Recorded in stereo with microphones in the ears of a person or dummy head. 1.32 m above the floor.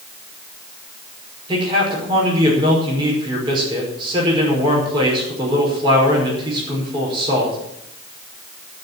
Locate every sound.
1.5 s a man speaking: 25° right (ahead or behind), 5.5 m